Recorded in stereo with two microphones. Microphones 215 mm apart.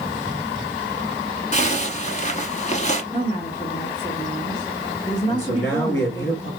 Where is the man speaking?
65° left (ahead or behind), 2.5 m.